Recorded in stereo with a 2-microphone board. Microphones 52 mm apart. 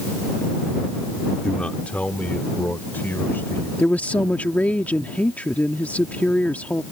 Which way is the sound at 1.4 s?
20° left (ahead or behind).